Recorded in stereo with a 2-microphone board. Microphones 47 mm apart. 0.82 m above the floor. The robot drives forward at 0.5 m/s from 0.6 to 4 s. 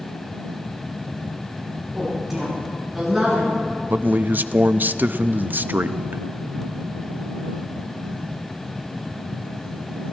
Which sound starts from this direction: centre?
A woman speaking, at 1.9 s.